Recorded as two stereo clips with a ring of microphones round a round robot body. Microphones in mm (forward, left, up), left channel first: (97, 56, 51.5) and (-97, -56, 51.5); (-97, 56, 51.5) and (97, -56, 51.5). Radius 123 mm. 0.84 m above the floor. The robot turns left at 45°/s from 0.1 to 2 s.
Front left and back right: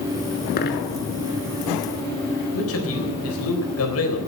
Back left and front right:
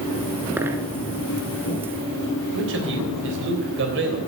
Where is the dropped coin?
50° left, 0.9 m; by 0.9 s 35° left, 0.9 m.